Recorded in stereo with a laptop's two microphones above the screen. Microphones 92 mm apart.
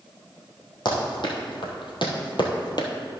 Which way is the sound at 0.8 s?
55° left (ahead or behind).